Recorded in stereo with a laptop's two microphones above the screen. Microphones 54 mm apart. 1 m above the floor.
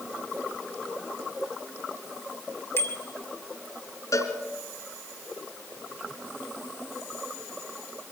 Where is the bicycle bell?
50° left (ahead or behind), 2.5 m.